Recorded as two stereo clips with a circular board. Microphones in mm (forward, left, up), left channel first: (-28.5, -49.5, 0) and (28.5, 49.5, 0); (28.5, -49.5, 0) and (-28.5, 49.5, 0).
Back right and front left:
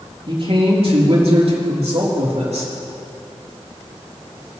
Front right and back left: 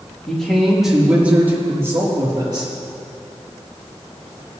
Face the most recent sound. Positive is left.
turn(degrees=70)